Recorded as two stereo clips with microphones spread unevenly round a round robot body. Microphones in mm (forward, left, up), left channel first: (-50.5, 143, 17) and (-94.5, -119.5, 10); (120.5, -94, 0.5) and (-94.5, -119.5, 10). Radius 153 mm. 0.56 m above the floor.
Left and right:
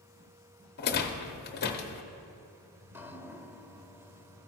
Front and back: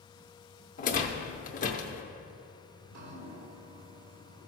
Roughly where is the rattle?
Ahead left.